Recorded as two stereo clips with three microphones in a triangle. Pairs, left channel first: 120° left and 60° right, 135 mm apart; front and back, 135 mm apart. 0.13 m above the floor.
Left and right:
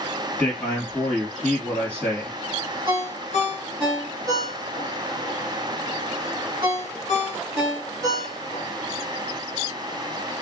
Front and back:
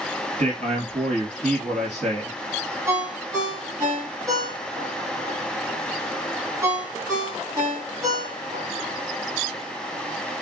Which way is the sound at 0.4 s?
160° right.